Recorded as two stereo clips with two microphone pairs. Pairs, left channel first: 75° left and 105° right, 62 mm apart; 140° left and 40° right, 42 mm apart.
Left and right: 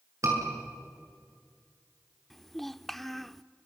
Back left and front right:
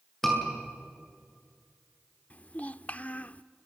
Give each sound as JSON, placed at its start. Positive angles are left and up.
{"t": 0.2, "sound": "a scream", "azimuth_deg": -140, "distance_m": 7.5}
{"t": 2.3, "sound": "a child speaking", "azimuth_deg": 160, "distance_m": 0.6}